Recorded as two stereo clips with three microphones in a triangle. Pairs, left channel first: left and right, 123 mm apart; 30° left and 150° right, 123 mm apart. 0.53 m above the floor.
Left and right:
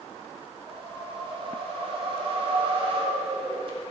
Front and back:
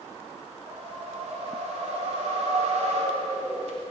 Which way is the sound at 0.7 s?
130° right.